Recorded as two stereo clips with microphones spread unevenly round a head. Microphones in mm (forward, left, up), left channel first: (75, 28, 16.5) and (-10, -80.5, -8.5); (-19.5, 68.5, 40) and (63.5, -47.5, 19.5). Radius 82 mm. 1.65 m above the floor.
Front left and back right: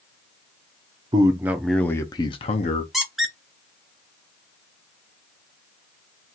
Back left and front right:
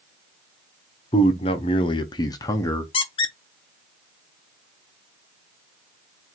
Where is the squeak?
130° left, 0.6 m.